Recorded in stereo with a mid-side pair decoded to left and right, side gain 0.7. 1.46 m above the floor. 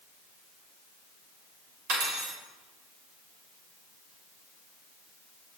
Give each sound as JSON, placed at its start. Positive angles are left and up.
{"t": 1.9, "sound": "cutlery clinking", "azimuth_deg": -70, "distance_m": 3.5}